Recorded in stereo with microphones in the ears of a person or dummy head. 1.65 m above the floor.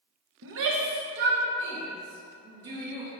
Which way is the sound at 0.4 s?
70° right (ahead or behind).